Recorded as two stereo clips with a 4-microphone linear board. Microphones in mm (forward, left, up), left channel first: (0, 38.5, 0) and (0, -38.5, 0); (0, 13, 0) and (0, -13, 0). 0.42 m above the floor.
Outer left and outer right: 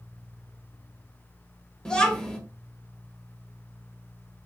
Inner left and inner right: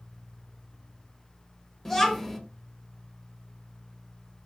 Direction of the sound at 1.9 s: 10° left (ahead or behind).